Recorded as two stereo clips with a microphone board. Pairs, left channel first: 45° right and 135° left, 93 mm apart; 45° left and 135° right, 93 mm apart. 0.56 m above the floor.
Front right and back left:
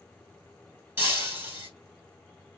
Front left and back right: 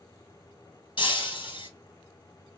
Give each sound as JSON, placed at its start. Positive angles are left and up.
{"t": 1.0, "sound": "breaking glass", "azimuth_deg": 70, "distance_m": 2.0}